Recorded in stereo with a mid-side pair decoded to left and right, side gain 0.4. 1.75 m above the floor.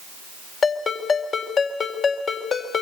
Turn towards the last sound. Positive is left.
turn(degrees=60)